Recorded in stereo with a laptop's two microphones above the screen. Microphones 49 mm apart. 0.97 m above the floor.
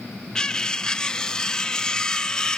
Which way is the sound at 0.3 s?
15° left (ahead or behind).